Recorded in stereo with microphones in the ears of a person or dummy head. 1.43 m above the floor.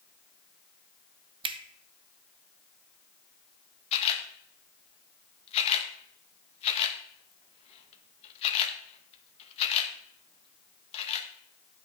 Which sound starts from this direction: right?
A finger snap, at 1.4 s.